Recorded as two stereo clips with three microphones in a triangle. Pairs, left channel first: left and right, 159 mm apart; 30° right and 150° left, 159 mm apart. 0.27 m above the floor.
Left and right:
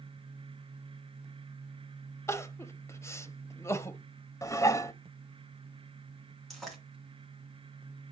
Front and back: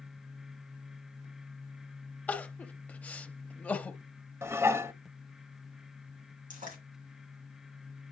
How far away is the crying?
About 0.6 m.